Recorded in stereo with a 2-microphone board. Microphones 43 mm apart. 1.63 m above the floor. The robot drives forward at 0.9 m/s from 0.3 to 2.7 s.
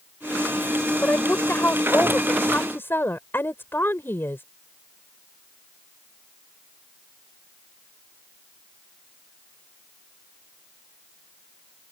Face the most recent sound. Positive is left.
turn(degrees=60)  # may be behind; listen again after turning